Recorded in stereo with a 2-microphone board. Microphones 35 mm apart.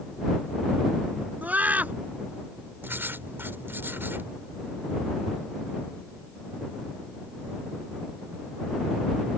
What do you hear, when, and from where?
1.4 s a scream: 50° right (ahead or behind)
2.8 s writing: 85° right